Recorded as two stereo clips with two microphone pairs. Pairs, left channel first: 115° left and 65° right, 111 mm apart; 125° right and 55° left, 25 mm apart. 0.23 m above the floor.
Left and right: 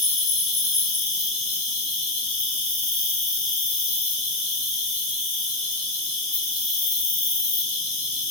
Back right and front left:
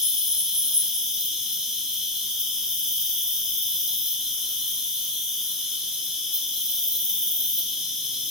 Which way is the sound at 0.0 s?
120° left.